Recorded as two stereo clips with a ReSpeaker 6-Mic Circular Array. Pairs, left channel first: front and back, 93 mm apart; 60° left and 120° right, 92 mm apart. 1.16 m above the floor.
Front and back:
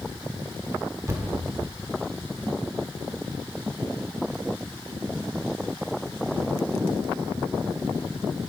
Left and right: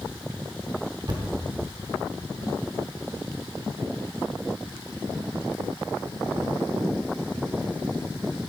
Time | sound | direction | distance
1.1 | a thud | 130° right | 1.0 m